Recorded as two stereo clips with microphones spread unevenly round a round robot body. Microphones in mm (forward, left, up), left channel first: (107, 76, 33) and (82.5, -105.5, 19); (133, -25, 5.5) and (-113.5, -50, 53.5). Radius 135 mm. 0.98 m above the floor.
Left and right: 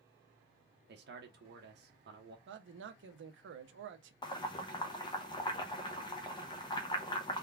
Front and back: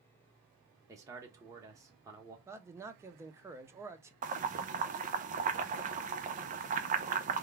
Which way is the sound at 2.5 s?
95° right.